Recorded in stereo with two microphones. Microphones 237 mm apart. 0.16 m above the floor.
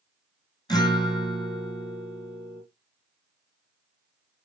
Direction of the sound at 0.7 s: 20° left (ahead or behind).